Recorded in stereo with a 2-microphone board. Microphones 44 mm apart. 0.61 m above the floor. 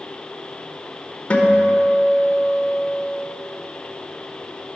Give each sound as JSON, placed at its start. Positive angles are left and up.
{"t": 1.3, "sound": "a guitar", "side_deg": 30, "distance_m": 1.0}